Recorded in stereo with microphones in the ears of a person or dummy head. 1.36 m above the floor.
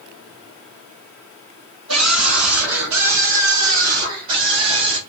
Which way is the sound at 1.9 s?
75° right (ahead or behind).